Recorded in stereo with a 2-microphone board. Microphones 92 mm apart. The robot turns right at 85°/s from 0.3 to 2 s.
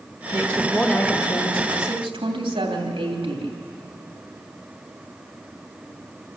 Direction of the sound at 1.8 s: 60° right (ahead or behind).